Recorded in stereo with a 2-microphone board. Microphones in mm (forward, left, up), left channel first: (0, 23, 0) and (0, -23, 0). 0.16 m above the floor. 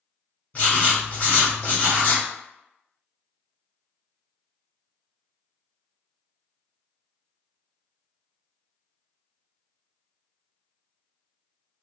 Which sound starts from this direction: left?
Writing, at 0.5 s.